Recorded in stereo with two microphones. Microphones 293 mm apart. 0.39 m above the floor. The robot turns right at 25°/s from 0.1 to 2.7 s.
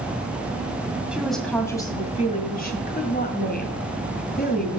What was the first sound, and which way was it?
A woman speaking, 5° right.